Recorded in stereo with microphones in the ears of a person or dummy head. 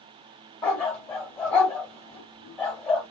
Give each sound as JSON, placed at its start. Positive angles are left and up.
{"t": 0.6, "sound": "a dog barking", "side_deg": 0, "distance_m": 2.0}